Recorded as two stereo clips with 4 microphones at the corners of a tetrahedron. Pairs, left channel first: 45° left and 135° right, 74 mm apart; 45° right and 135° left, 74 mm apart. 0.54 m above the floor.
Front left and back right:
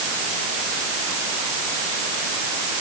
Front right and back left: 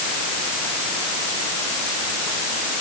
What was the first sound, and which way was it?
Only background noise.